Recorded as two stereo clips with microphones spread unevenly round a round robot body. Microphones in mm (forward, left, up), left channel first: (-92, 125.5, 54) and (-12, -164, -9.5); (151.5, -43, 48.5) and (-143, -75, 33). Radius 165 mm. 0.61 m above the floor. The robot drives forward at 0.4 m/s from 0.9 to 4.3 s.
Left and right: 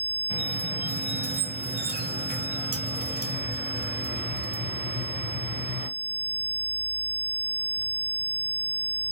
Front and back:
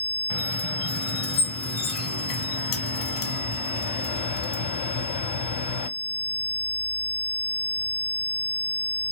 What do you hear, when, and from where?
0.3 s a squeak: 5° right, 2.0 m; by 5.9 s 20° right, 0.6 m